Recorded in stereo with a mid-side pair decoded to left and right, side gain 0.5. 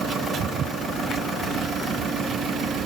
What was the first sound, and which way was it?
Only background noise.